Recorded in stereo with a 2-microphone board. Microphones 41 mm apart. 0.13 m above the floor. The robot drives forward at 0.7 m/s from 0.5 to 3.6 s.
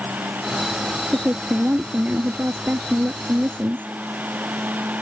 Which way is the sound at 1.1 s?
40° right (ahead or behind).